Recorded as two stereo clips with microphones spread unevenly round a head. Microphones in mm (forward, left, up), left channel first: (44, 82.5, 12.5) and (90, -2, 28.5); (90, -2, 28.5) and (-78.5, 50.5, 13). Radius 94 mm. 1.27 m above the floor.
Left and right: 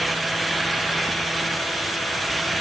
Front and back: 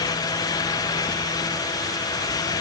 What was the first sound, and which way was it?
Only background noise.